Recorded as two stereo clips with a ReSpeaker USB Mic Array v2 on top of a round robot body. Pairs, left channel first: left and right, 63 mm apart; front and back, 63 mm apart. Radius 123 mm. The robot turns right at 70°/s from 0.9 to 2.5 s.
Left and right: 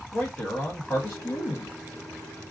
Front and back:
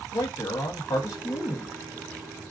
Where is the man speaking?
25° left, 0.8 m; by 1.8 s 85° left, 0.8 m.